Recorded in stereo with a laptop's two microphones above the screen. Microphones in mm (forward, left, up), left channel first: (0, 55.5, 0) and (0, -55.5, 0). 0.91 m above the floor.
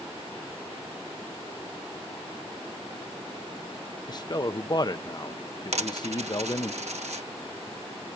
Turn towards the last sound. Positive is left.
turn(degrees=-80)